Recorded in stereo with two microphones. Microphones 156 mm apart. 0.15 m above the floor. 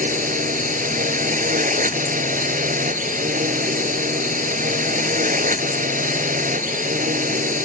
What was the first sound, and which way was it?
A drone, 60° right (ahead or behind).